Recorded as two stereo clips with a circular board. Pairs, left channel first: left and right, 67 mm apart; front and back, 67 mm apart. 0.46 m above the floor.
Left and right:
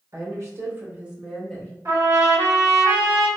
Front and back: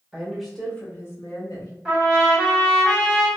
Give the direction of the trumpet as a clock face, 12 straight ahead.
3 o'clock.